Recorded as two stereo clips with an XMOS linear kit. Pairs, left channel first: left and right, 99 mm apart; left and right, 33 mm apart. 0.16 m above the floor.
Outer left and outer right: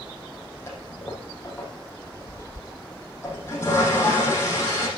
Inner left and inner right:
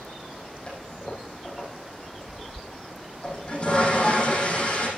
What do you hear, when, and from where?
0.7 s a toilet flushing: 25° left (ahead or behind), 6 m